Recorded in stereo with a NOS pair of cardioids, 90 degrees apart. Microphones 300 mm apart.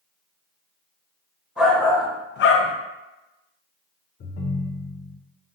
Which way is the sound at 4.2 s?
35° left.